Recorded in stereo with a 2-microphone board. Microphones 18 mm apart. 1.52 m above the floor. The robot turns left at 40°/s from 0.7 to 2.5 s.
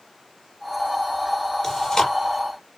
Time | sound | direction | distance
1.6 | chewing | 20° left (ahead or behind) | 6 m